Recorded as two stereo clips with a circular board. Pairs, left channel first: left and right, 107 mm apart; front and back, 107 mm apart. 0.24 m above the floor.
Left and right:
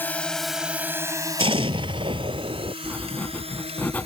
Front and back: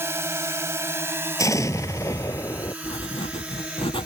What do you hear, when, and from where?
0.0 s a drone: 140° left; by 4.1 s 100° right
1.4 s an explosion: 60° right
2.8 s writing: 15° left